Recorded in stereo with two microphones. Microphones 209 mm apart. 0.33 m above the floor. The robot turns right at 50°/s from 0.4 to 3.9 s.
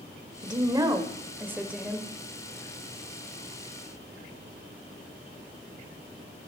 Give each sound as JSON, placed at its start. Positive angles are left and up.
{"t": 0.4, "sound": "a woman speaking", "side_deg": -20, "distance_m": 0.8}